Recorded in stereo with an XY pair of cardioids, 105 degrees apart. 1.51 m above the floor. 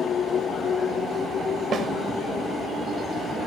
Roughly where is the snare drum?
Ahead right.